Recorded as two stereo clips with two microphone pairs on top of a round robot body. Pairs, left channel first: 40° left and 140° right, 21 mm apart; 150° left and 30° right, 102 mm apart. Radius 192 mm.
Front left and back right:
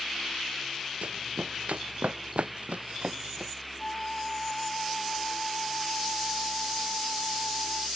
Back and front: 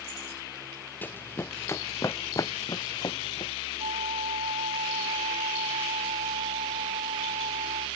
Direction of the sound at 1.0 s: 135° right.